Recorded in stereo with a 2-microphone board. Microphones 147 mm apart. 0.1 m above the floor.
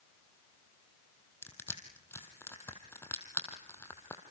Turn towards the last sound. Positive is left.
turn(degrees=15)  # may be behind; listen again after turning